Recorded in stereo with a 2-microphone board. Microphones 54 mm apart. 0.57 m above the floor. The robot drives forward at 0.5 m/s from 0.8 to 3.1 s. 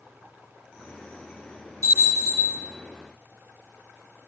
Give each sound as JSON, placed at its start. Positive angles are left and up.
{"t": 1.8, "sound": "a bell", "side_deg": -80, "distance_m": 4.5}